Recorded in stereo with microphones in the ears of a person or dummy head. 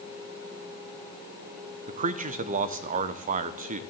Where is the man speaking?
40° right (ahead or behind), 0.7 m.